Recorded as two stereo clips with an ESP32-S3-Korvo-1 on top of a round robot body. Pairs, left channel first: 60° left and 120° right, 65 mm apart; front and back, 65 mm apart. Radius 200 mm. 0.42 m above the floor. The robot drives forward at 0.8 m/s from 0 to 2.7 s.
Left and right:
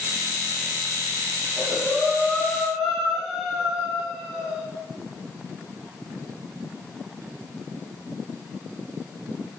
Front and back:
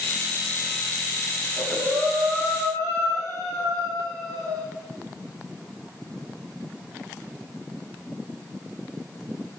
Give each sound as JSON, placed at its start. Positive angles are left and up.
{"t": 1.4, "sound": "breathing", "azimuth_deg": 145, "distance_m": 4.5}